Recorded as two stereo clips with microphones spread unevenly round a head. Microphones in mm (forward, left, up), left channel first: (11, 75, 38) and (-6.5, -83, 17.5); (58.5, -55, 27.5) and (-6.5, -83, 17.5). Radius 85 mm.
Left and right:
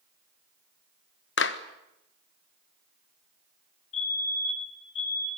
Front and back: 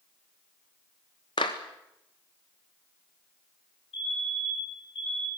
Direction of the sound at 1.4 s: 75° left.